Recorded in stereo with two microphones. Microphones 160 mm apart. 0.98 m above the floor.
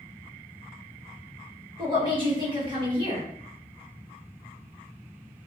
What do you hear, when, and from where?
1.8 s a woman speaking: 30° right (ahead or behind), 1.3 m